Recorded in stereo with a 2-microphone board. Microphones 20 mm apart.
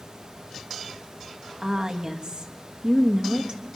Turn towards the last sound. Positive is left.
turn(degrees=-45)  # may be behind; listen again after turning